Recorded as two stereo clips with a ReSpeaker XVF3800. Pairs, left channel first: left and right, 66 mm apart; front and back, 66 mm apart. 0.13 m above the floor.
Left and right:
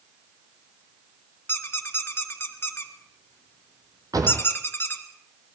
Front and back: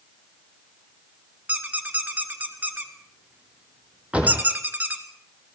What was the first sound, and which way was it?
A squeak, 125° left.